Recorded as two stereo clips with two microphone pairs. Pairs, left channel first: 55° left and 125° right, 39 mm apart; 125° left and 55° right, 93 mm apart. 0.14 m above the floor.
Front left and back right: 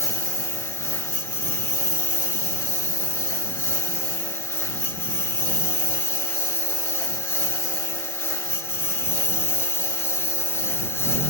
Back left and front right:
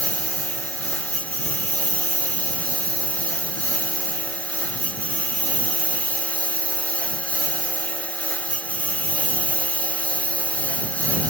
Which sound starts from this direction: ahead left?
A lawn mower, at 0.0 s.